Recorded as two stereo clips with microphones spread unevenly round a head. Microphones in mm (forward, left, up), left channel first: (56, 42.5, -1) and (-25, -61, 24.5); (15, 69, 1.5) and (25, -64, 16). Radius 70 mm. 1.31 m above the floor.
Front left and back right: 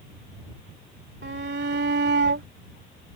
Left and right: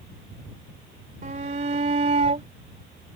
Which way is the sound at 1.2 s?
130° right.